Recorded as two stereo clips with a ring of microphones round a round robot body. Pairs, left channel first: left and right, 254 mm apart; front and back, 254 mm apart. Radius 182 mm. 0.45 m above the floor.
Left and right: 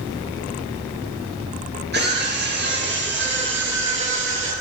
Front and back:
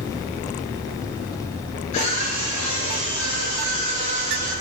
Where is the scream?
40° right, 8 m; by 4.5 s 50° right, 9.5 m.